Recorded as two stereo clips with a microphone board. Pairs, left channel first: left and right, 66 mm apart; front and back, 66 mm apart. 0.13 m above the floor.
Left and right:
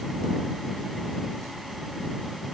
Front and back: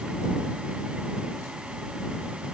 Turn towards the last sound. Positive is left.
No sound to turn to.